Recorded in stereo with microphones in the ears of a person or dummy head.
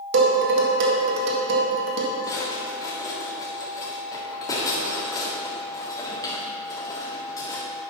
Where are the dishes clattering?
65° right (ahead or behind), 1.9 m.